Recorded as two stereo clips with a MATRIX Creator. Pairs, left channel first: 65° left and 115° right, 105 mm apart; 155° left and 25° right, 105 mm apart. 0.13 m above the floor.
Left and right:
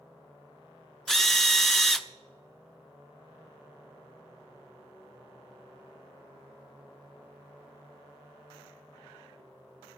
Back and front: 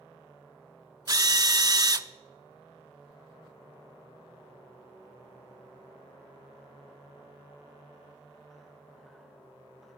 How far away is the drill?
About 0.5 m.